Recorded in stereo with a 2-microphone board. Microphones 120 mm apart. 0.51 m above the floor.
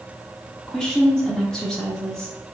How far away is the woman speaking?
About 0.9 m.